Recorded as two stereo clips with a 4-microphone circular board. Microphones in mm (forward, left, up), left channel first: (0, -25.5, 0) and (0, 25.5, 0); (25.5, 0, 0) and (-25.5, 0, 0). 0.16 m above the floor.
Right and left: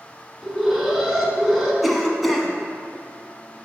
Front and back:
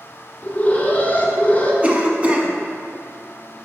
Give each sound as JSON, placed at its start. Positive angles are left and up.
{"t": 0.4, "sound": "an alarm", "azimuth_deg": 5, "distance_m": 1.4}
{"t": 1.8, "sound": "a cough", "azimuth_deg": 180, "distance_m": 1.1}